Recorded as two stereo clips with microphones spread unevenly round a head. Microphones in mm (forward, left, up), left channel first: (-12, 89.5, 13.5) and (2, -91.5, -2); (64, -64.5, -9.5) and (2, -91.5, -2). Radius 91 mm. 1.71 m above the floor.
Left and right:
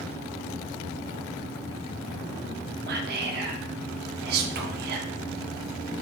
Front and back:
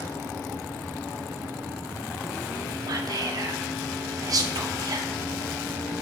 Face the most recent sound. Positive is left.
turn(degrees=-120)